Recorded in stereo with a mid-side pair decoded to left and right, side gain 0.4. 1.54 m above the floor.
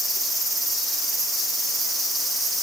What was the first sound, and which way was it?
Only background noise.